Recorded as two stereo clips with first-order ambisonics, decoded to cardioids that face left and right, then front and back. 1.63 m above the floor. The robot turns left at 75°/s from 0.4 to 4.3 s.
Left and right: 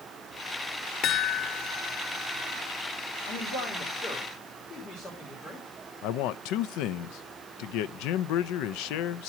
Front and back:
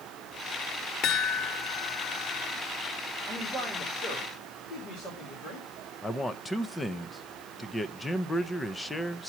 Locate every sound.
1.0 s a chime: 40° left, 0.9 m; by 2.6 s 75° right, 0.9 m
3.3 s a man speaking: 100° left, 3 m; by 5.7 s 20° left, 3 m
6.0 s a man speaking: 80° left, 0.5 m